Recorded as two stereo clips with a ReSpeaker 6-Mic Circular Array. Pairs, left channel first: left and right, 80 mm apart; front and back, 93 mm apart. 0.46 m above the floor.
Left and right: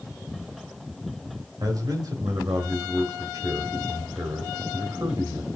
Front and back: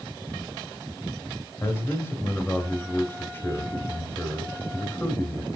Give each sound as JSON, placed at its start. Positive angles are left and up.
{"t": 1.6, "sound": "a man speaking", "azimuth_deg": -65, "distance_m": 1.9}